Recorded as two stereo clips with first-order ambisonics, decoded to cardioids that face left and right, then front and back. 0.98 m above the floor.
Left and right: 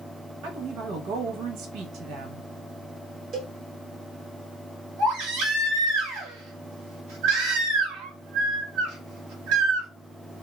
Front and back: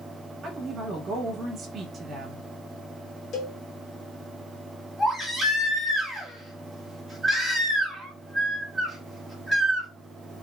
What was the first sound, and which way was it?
A woman speaking, 120° right.